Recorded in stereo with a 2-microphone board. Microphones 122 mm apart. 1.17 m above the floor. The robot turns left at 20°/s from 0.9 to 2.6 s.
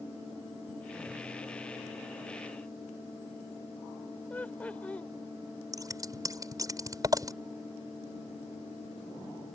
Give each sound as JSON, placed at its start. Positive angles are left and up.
{"t": 4.3, "sound": "laughter", "side_deg": 10}
{"t": 5.7, "sound": "scissors", "side_deg": -30}